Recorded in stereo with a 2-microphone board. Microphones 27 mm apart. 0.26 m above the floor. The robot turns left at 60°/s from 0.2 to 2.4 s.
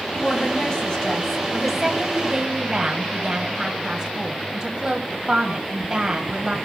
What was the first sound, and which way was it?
A woman speaking, 85° left.